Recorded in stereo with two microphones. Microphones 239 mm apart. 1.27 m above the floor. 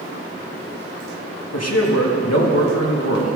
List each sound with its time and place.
1.5 s a man speaking: 85° left, 1.8 m